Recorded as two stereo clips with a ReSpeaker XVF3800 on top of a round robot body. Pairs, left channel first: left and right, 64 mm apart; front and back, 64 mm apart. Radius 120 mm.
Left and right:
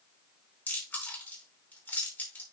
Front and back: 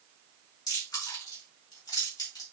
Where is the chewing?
25° left, 4.5 m.